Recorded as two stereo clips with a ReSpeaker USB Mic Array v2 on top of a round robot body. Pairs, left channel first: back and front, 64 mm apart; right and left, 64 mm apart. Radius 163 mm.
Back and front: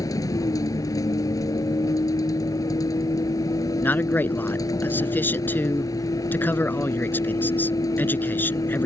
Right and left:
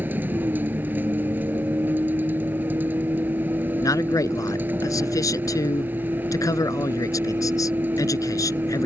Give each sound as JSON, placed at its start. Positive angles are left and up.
{"t": 0.0, "sound": "a vehicle", "azimuth_deg": 150}
{"t": 3.8, "sound": "a man speaking", "azimuth_deg": -120}